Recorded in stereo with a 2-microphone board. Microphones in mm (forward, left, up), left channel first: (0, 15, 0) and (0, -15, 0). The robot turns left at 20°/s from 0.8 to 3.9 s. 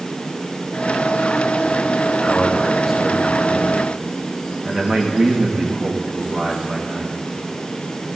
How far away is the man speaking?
About 9.5 m.